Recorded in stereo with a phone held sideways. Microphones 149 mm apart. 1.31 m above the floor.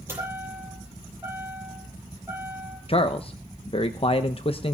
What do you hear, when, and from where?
0.1 s a chime: 15° right (ahead or behind), 7.5 m
2.9 s a man speaking: 40° left (ahead or behind), 0.8 m